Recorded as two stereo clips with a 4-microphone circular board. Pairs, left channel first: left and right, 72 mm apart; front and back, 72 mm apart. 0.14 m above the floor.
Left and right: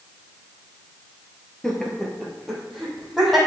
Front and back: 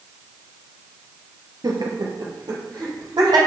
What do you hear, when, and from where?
1.6 s laughter: 170° left, 2 m; by 3.4 s straight behind, 4.5 m